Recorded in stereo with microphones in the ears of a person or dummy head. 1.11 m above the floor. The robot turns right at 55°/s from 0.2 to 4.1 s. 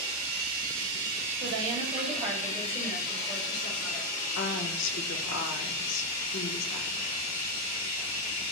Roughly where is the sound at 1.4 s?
Ahead right.